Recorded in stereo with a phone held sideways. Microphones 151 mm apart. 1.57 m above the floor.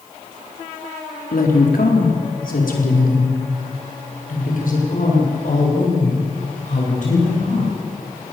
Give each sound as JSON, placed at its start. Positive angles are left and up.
{"t": 1.3, "sound": "a woman speaking", "side_deg": 90, "distance_m": 4.0}